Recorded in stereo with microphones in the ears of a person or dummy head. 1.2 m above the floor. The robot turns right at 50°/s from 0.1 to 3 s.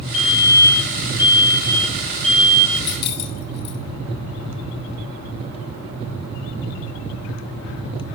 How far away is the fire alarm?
About 10 m.